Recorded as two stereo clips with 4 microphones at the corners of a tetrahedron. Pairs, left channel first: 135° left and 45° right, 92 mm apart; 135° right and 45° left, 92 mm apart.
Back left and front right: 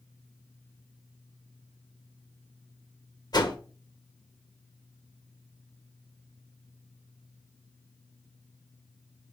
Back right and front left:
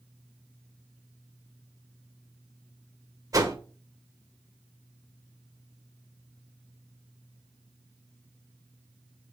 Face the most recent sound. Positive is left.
turn(degrees=95)